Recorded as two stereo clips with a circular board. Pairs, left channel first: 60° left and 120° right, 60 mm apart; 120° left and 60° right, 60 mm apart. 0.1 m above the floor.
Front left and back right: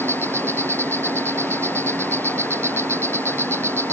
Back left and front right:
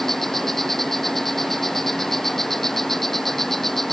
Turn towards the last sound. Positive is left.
turn(degrees=-155)